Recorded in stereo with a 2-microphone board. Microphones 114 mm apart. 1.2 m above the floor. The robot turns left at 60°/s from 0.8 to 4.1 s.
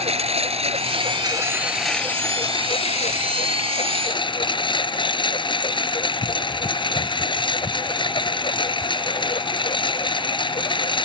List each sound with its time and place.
0.0 s a lawn mower: 115° right; by 11.1 s 45° left